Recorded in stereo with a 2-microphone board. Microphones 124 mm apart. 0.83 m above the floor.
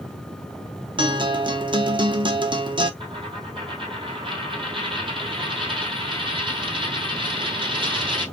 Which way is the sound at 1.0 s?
40° right (ahead or behind).